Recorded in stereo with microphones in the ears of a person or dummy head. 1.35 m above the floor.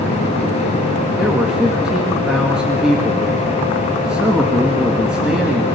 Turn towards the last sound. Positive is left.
turn(degrees=-5)  # may be behind; listen again after turning